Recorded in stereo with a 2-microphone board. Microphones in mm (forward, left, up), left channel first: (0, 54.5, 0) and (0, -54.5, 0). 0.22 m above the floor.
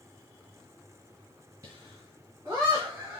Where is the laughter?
35° right (ahead or behind), 2.5 m; by 3.2 s 25° right (ahead or behind), 1.9 m.